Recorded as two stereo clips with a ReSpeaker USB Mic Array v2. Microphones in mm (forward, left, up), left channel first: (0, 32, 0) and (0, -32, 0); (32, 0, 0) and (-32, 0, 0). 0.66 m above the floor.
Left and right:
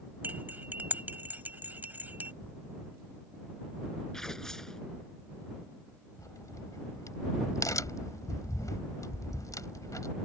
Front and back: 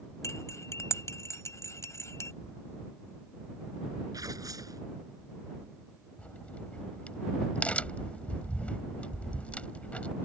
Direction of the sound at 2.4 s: 25° left.